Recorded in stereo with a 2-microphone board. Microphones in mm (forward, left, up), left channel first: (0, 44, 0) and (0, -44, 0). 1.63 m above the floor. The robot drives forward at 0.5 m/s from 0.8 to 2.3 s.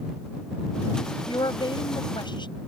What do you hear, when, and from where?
1.3 s a woman speaking: 60° left (ahead or behind)